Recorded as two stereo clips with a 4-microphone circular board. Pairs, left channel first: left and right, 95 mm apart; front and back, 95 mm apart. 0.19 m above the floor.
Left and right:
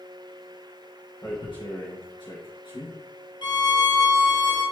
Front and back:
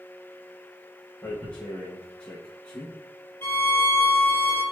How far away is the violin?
About 1.3 m.